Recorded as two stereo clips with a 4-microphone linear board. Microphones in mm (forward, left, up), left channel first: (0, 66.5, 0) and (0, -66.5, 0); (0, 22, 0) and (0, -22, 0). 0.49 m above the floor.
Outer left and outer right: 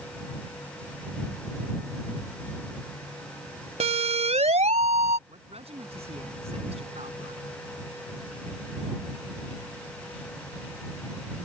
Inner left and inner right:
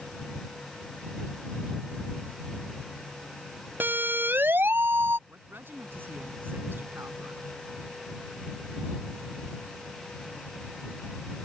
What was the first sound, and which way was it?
A siren, 55° right (ahead or behind).